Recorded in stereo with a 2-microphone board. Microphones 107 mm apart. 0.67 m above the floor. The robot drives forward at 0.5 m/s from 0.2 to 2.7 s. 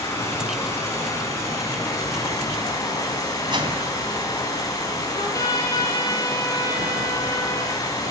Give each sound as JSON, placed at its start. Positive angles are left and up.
{"t": 0.0, "sound": "running water", "side_deg": 25, "distance_m": 6.5}
{"t": 3.5, "sound": "a whoosh", "side_deg": -45, "distance_m": 3.5}
{"t": 5.1, "sound": "a trumpet", "side_deg": 30, "distance_m": 5.0}